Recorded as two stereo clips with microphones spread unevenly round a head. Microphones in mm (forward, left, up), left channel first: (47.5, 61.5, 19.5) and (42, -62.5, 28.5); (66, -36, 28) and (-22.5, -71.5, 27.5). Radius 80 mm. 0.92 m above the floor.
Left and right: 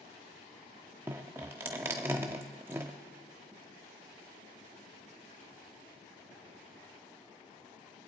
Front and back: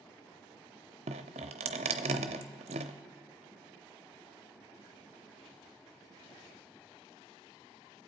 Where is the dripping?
170° right, 0.6 m.